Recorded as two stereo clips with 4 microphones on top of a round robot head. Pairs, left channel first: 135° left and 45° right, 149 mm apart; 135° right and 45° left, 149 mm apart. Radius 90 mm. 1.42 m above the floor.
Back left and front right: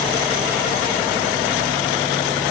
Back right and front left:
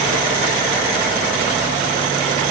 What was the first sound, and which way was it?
Only background noise.